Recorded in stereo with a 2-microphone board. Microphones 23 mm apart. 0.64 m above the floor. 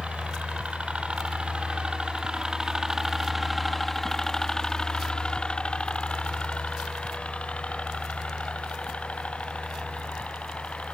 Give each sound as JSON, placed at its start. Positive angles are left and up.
{"t": 0.0, "sound": "a helicopter", "side_deg": -60}